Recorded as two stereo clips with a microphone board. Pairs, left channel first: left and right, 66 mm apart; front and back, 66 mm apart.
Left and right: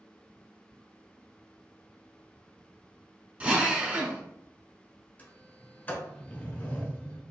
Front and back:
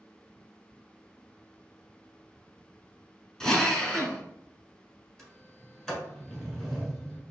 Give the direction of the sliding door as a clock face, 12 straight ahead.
10 o'clock.